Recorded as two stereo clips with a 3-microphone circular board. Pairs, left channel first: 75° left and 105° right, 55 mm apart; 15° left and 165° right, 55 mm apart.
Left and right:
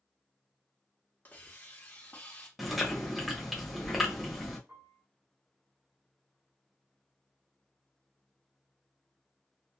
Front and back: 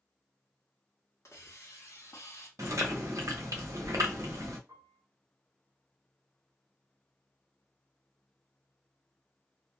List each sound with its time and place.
1.2 s a hiss: 20° left, 0.8 m
2.6 s chewing: 165° left, 0.8 m
4.7 s a piano: 140° right, 1.3 m